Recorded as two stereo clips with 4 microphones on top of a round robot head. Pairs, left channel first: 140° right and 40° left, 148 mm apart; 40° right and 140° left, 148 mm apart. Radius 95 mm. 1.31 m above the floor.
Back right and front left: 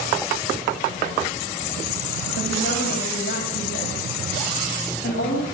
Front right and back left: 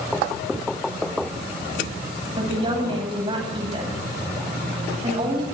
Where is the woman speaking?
165° right, 9.5 m.